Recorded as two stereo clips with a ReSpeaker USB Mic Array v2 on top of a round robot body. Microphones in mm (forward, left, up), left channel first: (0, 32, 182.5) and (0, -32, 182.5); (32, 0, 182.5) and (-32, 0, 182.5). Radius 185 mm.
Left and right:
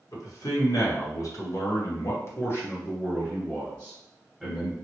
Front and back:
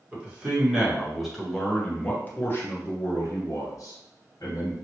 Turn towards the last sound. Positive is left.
turn(degrees=0)